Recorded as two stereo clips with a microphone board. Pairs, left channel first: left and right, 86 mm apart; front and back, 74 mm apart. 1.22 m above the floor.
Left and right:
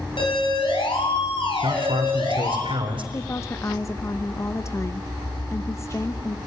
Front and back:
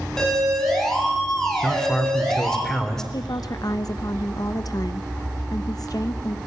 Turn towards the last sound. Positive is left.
turn(degrees=35)